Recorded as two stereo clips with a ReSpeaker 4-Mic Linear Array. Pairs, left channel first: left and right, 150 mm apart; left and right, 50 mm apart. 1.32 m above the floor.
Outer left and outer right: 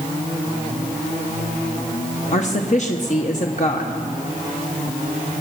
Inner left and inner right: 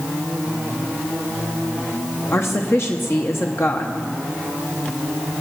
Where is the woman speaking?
55° left (ahead or behind), 0.9 m.